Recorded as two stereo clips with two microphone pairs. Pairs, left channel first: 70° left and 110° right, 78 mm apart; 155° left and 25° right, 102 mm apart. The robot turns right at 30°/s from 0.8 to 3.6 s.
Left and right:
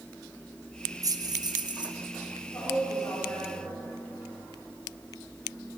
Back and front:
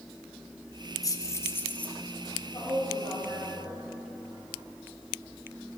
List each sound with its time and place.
1.0 s keys jangling: 155° right, 0.6 m; by 1.9 s 130° right, 0.6 m
2.5 s a woman speaking: 110° left, 3 m; by 3.8 s 140° left, 3 m